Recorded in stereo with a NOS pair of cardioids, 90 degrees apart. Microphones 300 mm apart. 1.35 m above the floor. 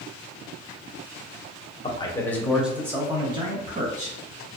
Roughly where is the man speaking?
Ahead.